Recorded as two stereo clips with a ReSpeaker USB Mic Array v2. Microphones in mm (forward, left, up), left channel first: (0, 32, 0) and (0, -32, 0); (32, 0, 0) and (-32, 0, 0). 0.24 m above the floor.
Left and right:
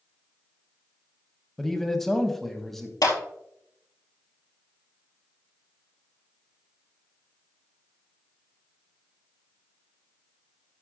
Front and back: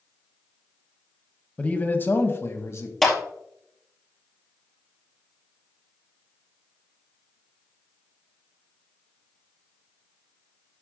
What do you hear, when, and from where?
1.6 s a man speaking: 10° left, 1.2 m; by 2.9 s 5° left, 1.8 m
3.0 s a clap: 85° left, 4 m